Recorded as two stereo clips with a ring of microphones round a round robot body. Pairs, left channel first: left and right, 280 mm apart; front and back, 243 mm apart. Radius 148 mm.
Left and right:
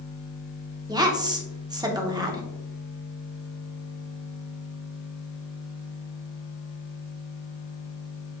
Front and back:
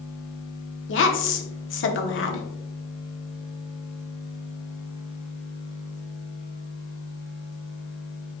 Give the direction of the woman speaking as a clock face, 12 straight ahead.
1 o'clock.